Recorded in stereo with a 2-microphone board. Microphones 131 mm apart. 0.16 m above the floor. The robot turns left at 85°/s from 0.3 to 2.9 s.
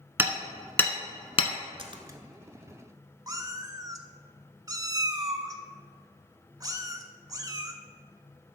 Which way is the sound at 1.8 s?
45° right (ahead or behind).